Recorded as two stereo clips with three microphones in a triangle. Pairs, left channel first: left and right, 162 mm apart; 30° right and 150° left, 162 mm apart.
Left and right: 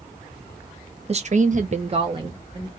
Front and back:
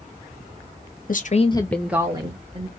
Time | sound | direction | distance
1.1 | a woman speaking | 45° right | 0.6 m